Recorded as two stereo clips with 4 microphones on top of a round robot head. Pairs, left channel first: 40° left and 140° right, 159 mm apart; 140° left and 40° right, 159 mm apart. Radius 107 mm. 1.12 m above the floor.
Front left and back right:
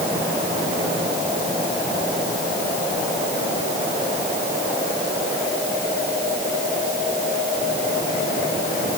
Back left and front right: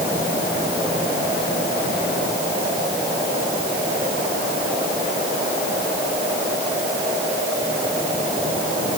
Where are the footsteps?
No footsteps in this recording.